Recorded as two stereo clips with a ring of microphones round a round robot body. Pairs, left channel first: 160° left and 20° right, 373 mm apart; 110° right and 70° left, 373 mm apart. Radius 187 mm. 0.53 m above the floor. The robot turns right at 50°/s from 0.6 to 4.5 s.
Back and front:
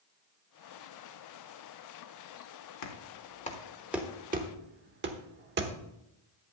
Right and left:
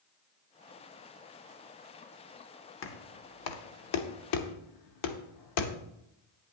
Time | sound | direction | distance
2.8 | knocking | 165° right | 1.0 m